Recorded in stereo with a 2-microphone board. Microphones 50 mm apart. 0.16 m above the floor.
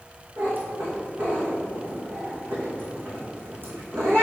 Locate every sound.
0.4 s a cat meowing: 50° right (ahead or behind), 2.5 m